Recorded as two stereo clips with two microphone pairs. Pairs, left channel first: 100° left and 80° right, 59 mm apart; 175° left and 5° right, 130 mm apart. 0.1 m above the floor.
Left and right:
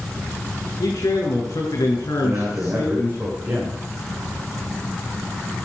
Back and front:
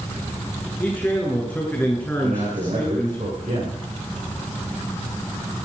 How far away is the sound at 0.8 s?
About 7 m.